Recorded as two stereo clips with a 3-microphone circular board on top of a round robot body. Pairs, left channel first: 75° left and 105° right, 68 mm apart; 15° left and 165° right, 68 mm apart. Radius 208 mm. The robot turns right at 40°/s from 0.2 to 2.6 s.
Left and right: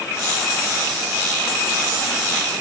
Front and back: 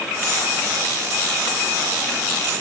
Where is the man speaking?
I don't hear a man speaking.